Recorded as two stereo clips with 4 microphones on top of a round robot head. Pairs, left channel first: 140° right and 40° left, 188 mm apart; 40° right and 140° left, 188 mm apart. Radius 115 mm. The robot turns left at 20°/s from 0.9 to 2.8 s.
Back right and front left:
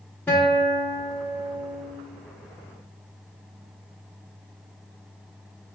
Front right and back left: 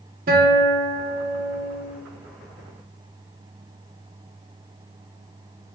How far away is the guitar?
About 0.6 m.